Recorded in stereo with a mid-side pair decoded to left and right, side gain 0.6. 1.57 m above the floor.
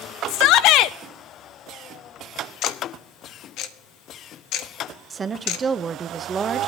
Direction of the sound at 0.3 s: 70° left.